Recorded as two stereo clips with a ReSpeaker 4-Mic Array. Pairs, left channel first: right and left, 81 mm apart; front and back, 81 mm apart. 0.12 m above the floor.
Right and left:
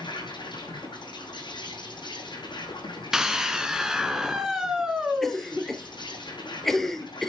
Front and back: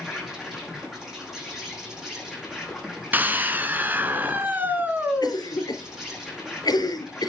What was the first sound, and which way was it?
An insect, 95° right.